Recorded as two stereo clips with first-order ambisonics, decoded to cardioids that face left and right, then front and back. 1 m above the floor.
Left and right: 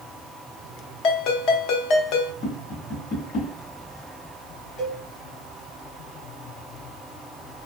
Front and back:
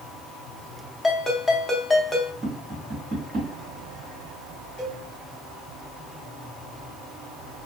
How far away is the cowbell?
About 1.8 m.